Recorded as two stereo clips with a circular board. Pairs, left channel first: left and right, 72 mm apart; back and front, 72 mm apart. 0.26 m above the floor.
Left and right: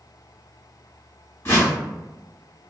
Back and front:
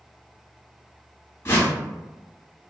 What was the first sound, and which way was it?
A whoosh, 135° left.